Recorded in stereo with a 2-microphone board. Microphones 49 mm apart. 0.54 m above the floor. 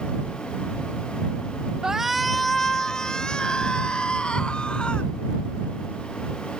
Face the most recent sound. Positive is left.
turn(degrees=20)  # may be behind; listen again after turning